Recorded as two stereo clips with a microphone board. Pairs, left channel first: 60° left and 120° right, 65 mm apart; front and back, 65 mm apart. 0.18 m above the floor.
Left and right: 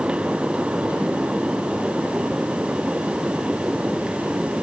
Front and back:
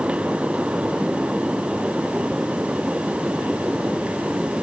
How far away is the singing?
No singing in this recording.